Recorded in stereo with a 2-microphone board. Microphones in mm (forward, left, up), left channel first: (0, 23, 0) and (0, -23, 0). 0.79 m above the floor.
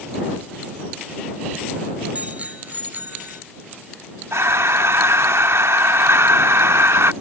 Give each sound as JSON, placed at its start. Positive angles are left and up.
{"t": 2.1, "sound": "a bicycle bell", "side_deg": -30}
{"t": 4.3, "sound": "breathing", "side_deg": -65}